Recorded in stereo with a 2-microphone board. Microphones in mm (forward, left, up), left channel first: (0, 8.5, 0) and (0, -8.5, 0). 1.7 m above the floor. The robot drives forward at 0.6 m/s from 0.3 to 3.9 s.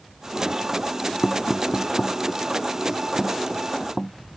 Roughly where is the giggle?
No giggle in this recording.